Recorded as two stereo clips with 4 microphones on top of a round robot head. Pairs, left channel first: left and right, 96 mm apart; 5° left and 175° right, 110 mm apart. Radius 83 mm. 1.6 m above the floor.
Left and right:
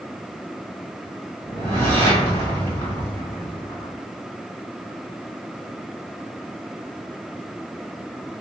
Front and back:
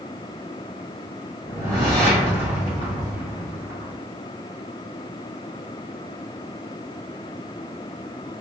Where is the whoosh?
65° right, 1.9 m.